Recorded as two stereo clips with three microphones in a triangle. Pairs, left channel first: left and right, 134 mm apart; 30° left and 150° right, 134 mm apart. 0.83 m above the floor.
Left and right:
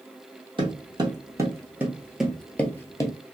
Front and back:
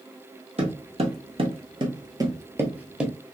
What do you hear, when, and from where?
0.6 s footsteps: 135° right, 1.4 m; by 3.1 s 125° left, 0.9 m